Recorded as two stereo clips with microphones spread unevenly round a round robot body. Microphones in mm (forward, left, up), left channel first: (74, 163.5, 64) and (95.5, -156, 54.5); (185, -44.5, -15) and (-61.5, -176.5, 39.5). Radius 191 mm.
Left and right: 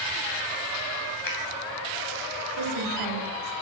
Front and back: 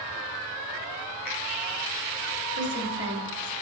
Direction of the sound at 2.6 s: 95° right.